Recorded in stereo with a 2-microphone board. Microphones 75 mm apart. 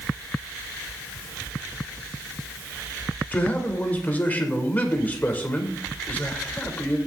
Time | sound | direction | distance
3.3 | a man speaking | 25° left (ahead or behind) | 2.5 m